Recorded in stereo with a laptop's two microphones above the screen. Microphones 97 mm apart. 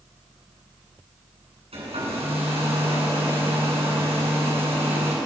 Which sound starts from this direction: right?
A hair dryer, at 1.7 s.